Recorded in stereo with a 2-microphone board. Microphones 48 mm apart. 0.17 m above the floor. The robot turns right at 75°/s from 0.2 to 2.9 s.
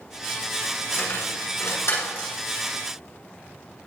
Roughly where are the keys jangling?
Left.